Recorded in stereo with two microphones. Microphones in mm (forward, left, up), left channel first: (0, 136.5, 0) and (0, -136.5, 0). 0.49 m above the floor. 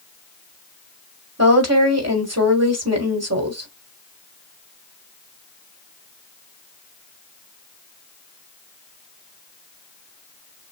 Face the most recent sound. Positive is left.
turn(degrees=-60)  # may be behind; listen again after turning